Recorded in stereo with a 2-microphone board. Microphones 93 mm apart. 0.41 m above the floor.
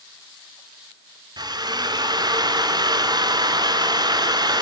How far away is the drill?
About 2.5 m.